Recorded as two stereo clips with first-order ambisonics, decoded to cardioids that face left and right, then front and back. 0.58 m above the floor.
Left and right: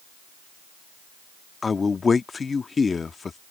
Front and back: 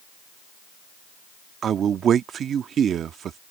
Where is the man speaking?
150° left.